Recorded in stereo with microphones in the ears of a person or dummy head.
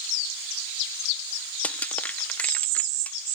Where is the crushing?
5° left (ahead or behind).